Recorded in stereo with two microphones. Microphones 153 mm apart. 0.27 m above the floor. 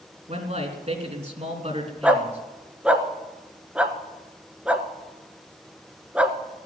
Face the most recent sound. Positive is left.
turn(degrees=-5)  # may be behind; listen again after turning